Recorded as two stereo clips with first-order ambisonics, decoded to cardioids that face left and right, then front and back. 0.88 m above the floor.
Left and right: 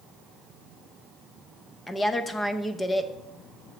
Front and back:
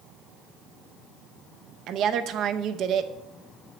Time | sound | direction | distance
1.9 | a woman speaking | 165° left | 0.5 m